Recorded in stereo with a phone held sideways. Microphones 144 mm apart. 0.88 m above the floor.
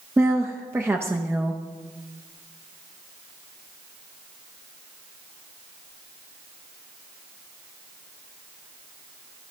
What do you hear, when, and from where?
0.2 s a woman speaking: 15° right (ahead or behind), 0.6 m